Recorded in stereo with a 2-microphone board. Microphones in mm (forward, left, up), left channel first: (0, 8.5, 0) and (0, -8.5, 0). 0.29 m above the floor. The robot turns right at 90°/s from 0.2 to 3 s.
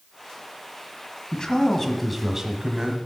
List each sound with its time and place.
1.3 s a man speaking: 110° left, 1.6 m; by 3.0 s 100° right, 1.6 m